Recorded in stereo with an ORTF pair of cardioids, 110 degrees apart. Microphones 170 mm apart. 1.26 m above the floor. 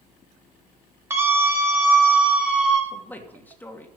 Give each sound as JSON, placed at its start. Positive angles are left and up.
{"t": 1.1, "sound": "a scream", "azimuth_deg": -15, "distance_m": 5.5}
{"t": 2.9, "sound": "a man speaking", "azimuth_deg": 10, "distance_m": 2.5}